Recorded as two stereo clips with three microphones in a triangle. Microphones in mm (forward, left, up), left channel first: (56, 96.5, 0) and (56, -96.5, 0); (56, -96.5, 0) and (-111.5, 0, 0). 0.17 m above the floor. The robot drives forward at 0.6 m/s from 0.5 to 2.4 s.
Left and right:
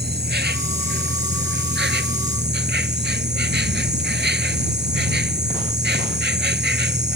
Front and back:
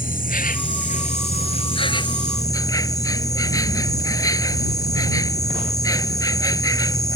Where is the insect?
70° right; by 7.2 s 100° right.